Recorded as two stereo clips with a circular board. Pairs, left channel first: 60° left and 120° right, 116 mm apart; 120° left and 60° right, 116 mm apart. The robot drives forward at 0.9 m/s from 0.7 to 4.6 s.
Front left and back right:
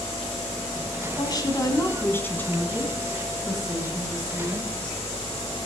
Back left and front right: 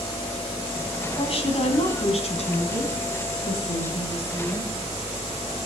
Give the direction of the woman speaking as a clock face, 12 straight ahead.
9 o'clock.